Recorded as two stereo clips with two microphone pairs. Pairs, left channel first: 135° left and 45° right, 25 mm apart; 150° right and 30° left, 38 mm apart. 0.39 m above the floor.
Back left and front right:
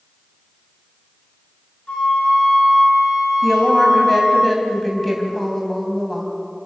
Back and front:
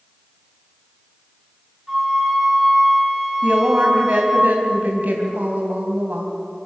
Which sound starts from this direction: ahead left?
A woman speaking, at 3.4 s.